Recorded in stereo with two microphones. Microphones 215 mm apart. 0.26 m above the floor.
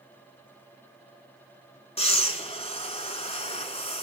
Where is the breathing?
30° left (ahead or behind), 1.7 m.